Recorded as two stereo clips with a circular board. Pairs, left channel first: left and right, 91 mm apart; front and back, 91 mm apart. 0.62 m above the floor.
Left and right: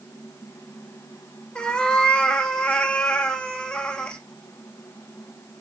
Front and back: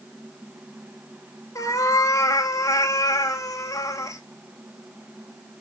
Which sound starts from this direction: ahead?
A cat meowing, at 1.6 s.